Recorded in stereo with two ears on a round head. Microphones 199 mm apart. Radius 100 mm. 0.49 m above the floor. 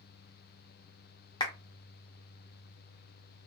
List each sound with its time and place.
1.4 s a clap: 20° left (ahead or behind), 0.7 m